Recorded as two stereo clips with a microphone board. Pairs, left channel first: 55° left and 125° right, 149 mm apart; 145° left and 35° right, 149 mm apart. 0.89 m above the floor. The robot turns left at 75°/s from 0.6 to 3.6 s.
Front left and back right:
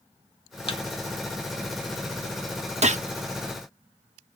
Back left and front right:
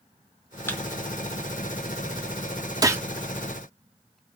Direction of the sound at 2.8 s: 95° right.